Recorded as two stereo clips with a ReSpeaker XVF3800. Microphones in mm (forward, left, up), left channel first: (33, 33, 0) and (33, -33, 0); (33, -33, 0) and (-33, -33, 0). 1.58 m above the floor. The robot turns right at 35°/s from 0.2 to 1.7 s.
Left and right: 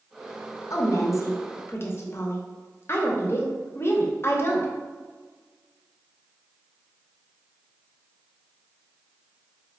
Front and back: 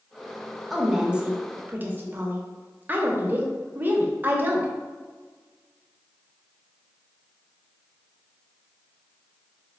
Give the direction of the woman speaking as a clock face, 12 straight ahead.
9 o'clock.